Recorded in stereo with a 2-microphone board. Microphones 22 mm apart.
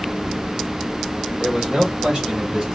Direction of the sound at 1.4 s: 60° right (ahead or behind).